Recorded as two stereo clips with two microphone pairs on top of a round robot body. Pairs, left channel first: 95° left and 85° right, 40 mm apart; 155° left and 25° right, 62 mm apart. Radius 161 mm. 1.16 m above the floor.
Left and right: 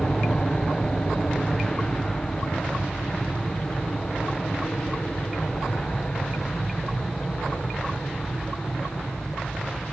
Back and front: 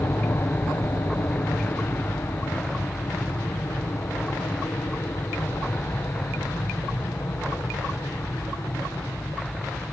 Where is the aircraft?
145° left; by 9.9 s 135° left.